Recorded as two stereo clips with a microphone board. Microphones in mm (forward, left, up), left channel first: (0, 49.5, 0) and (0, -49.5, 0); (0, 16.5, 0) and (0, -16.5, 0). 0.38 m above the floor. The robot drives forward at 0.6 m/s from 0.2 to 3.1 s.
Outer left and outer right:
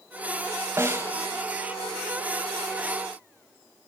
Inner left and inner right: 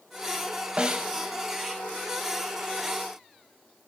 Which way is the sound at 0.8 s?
25° right (ahead or behind).